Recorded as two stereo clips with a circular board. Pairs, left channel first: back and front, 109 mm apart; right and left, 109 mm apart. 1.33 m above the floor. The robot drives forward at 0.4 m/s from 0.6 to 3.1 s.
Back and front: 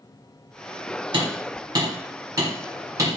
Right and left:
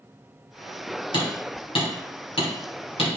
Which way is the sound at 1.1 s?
50° right.